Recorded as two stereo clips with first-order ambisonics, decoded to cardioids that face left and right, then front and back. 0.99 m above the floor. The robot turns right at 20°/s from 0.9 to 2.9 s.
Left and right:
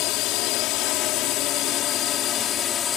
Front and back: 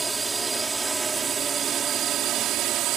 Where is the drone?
105° left; by 3.0 s 145° left.